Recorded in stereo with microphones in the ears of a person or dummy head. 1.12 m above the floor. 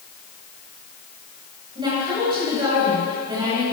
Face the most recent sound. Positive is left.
turn(degrees=-20)  # may be behind; listen again after turning